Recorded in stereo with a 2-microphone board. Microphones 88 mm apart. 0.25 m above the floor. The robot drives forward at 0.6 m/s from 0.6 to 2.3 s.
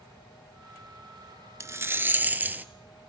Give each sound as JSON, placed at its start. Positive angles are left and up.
{"t": 1.6, "sound": "a rattle", "side_deg": -35, "distance_m": 0.5}